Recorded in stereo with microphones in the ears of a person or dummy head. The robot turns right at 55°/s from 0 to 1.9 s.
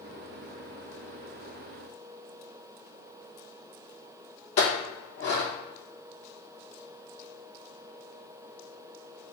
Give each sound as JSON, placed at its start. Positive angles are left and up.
{"t": 4.6, "sound": "a clink", "side_deg": 55, "distance_m": 1.2}